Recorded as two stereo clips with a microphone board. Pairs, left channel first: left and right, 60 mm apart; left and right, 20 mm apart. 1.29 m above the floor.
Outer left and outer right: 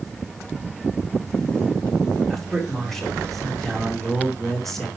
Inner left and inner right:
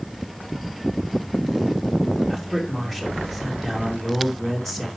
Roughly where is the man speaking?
Centre.